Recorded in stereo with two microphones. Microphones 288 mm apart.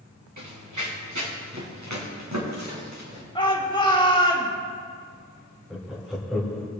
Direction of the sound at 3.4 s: 15° left (ahead or behind).